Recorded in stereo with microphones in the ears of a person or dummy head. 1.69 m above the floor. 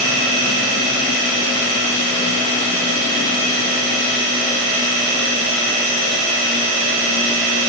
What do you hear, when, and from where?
Only background noise.